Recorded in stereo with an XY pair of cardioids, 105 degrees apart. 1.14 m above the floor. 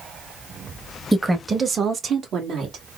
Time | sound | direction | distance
1.1 | a woman speaking | 10° right | 1.1 m